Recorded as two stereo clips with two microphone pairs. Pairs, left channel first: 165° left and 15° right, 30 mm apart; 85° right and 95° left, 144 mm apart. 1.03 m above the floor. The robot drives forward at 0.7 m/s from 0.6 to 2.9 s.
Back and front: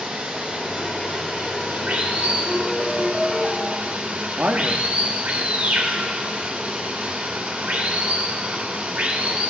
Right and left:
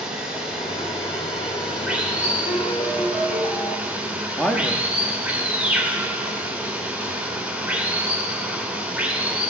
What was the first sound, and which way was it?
Running water, 10° left.